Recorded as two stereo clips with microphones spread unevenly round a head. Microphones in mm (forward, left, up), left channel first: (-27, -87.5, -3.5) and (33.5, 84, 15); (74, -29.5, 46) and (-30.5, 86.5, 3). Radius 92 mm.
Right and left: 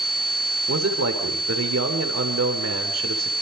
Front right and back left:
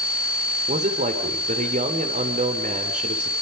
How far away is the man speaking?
About 3 m.